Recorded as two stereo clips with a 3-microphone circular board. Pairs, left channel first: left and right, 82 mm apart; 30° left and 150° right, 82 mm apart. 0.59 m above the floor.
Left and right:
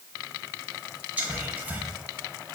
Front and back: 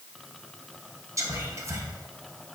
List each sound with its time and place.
1.2 s whispering: 150° right, 0.8 m